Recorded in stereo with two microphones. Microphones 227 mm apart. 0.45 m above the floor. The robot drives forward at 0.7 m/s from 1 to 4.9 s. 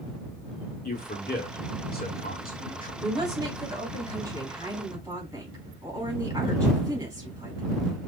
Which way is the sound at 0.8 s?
40° left (ahead or behind).